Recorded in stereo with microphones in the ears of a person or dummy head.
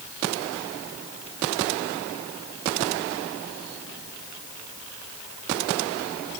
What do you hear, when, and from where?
Only background noise.